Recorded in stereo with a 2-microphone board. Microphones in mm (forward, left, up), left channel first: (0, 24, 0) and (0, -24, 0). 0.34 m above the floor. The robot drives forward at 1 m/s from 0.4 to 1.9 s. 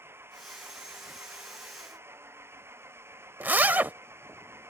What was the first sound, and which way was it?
An engine running, 60° right (ahead or behind).